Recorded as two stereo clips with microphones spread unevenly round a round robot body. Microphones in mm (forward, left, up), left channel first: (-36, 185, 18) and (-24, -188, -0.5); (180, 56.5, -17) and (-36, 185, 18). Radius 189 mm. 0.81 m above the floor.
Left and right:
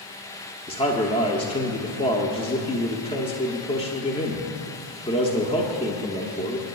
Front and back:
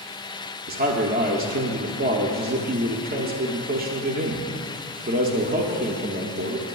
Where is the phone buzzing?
I don't hear a phone buzzing.